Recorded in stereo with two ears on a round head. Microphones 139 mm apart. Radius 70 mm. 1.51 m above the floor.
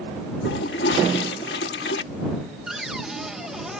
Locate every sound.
0.5 s a toilet flushing: 75° left (ahead or behind)
2.7 s a cupboard door: 5° right (ahead or behind)